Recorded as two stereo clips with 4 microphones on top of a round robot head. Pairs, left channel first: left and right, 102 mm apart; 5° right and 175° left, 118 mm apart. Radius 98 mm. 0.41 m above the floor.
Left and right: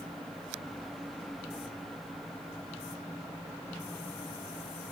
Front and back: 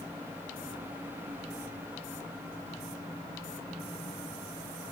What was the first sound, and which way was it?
Only background noise.